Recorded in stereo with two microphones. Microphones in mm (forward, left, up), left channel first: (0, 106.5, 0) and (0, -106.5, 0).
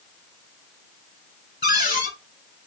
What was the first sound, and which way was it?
A cupboard door, 50° left (ahead or behind).